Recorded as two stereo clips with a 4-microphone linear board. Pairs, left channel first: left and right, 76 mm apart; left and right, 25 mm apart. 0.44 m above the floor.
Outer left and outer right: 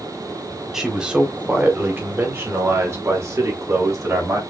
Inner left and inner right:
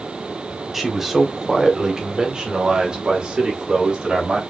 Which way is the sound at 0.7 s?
5° right (ahead or behind).